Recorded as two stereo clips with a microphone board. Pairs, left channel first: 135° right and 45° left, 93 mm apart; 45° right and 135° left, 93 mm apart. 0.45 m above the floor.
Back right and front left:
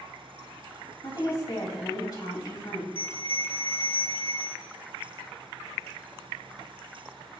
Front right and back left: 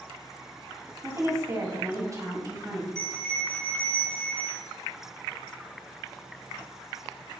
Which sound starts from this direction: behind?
A woman speaking, at 1.0 s.